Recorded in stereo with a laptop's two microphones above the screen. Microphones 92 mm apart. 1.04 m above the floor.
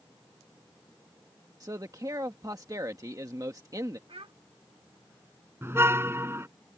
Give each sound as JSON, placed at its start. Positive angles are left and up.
{"t": 1.6, "sound": "a man speaking", "side_deg": -40}
{"t": 4.1, "sound": "a child speaking", "side_deg": -85}
{"t": 5.6, "sound": "a car horn", "side_deg": -25}